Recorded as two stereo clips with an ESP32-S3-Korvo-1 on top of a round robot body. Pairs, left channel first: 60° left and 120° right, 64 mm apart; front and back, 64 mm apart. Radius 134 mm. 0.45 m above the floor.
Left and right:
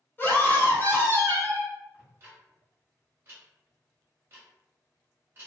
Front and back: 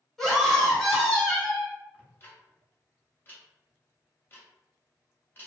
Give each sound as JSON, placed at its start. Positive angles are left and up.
{"t": 0.2, "sound": "a scream", "azimuth_deg": 75, "distance_m": 1.2}
{"t": 1.9, "sound": "ticking", "azimuth_deg": -65, "distance_m": 0.6}